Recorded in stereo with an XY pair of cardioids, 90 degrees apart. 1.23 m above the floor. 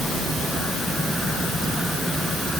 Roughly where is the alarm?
I don't hear an alarm.